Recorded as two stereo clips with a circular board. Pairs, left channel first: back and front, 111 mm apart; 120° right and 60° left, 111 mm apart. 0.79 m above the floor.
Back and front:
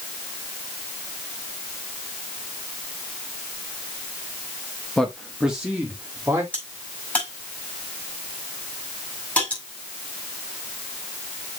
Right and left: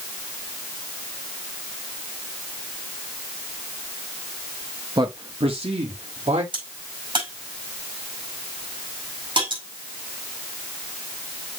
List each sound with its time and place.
5.0 s a man speaking: 100° left, 1.0 m; by 6.4 s 70° left, 2 m
6.5 s a crack: 105° left, 5 m